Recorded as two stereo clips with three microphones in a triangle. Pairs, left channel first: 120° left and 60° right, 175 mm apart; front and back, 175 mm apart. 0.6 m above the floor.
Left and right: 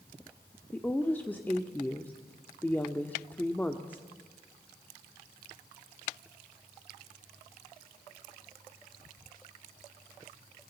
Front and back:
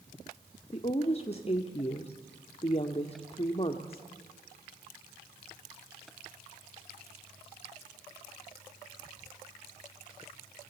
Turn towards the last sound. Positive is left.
turn(degrees=40)